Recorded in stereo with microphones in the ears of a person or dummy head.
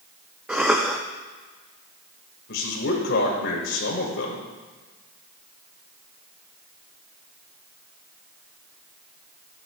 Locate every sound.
0.5 s a cough: 5° right (ahead or behind), 0.5 m
2.5 s a man speaking: 65° left (ahead or behind), 1.6 m